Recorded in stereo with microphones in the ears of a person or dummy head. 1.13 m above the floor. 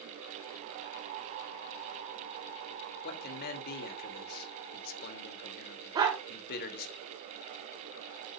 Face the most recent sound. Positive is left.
turn(degrees=-20)  # may be behind; listen again after turning